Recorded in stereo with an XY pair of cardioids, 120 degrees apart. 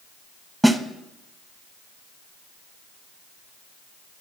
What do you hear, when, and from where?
0.6 s a snare drum: 5° right, 1.0 m